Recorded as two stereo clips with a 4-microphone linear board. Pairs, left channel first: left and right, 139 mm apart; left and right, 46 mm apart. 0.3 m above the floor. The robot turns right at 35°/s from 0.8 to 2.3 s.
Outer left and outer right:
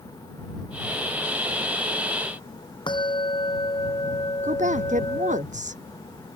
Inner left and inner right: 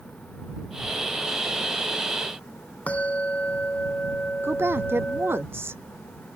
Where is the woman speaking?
60° right (ahead or behind).